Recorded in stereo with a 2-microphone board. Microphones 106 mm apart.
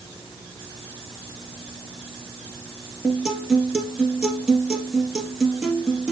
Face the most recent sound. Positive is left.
turn(degrees=-10)  # may be behind; listen again after turning